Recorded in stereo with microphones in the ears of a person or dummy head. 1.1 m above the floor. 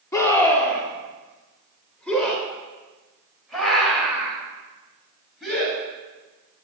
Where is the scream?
15° left (ahead or behind), 3.5 m; by 5.8 s centre (ahead or behind), 8.5 m.